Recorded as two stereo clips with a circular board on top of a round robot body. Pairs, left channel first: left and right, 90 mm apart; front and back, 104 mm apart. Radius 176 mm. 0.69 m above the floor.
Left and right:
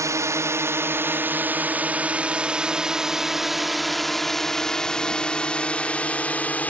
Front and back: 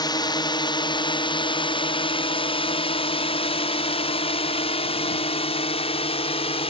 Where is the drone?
40° right; by 6.7 s 15° left.